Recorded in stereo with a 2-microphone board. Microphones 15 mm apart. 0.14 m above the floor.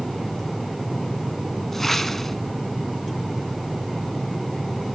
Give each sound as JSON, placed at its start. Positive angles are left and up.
{"t": 1.7, "sound": "a whoosh", "side_deg": 15, "distance_m": 0.9}